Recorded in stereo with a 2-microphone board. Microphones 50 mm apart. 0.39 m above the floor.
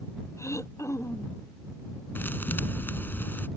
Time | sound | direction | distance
0.4 | throat clearing | 70° left (ahead or behind) | ?
2.1 | a thud | 40° left (ahead or behind) | ?